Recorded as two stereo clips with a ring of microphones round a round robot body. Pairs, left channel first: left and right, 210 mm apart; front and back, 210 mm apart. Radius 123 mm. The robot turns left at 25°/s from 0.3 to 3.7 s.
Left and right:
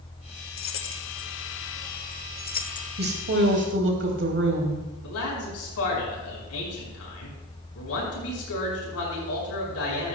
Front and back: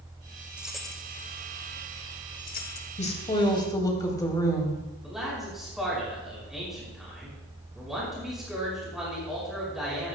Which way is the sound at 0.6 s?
95° left.